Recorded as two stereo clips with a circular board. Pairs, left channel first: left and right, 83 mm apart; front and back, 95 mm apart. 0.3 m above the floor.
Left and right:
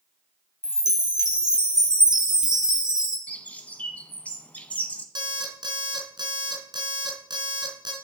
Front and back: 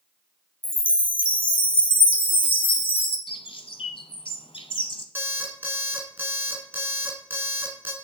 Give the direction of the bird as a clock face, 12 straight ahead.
11 o'clock.